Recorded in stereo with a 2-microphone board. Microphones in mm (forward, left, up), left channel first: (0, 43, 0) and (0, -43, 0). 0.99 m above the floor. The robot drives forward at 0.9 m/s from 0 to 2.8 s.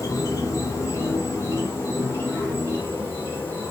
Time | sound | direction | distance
0.0 | an insect | 40° left (ahead or behind) | 4.5 m